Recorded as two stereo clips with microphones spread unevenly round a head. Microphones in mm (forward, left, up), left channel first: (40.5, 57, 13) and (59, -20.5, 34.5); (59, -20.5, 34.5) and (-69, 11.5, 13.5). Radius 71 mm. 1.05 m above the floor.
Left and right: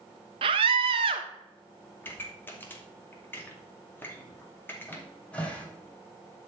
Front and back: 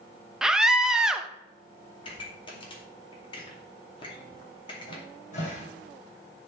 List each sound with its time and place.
0.4 s a scream: 110° right, 1.0 m
2.0 s a pop: 45° left, 2.5 m
4.9 s a cupboard door: 25° left, 3 m